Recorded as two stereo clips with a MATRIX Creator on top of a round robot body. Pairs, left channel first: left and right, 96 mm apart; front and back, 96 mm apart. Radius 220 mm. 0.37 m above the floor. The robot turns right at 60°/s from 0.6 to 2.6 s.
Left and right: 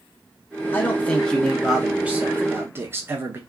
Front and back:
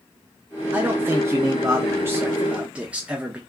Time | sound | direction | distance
0.7 | a man speaking | 130° left | 0.8 m